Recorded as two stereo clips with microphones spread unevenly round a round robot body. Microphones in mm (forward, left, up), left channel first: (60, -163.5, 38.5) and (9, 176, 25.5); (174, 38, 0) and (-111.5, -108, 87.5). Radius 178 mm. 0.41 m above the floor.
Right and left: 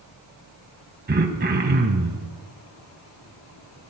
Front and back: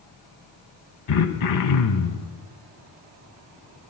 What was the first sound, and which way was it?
Throat clearing, 35° left.